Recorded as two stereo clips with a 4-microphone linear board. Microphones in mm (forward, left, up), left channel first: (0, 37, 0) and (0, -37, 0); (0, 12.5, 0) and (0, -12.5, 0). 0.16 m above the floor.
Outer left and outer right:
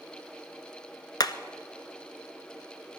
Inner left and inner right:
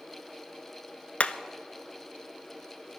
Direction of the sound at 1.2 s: 65° left (ahead or behind).